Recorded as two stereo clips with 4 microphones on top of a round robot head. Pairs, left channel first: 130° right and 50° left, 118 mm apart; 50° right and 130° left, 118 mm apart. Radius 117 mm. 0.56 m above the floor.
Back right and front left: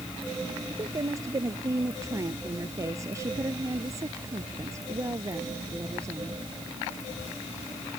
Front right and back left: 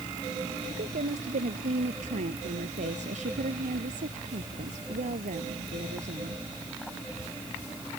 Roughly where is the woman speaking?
Behind left.